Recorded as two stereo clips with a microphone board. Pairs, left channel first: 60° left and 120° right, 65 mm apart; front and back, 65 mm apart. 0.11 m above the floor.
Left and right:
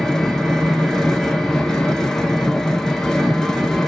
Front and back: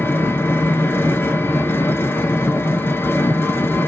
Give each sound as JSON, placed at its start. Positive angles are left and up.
{"t": 0.0, "sound": "an engine running", "azimuth_deg": -15, "distance_m": 0.7}